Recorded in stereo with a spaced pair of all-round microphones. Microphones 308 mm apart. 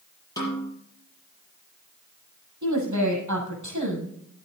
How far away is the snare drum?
About 7 m.